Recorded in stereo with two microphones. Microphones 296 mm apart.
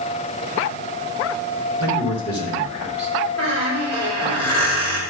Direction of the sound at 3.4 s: 55° left (ahead or behind).